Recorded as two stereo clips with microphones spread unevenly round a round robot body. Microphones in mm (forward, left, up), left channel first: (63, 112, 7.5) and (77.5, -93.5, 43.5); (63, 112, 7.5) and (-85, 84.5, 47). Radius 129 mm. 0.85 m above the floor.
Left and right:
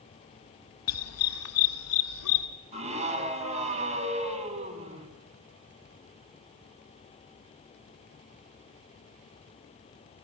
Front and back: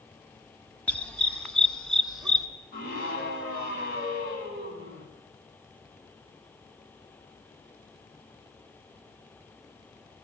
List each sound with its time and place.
0.9 s a dog barking: 95° left, 2 m; by 2.5 s 100° left, 4 m
2.7 s a scream: 30° right, 6 m